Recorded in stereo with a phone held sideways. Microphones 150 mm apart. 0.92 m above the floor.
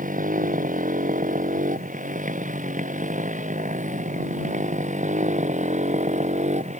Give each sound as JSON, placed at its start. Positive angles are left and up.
{"t": 0.0, "sound": "a motorcycle", "side_deg": -60}